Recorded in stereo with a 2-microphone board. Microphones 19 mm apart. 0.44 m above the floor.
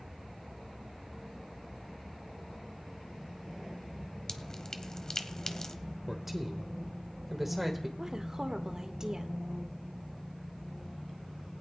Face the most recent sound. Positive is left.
turn(degrees=-35)  # may be behind; listen again after turning